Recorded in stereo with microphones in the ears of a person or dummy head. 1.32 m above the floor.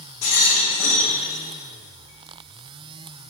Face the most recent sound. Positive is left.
turn(degrees=80)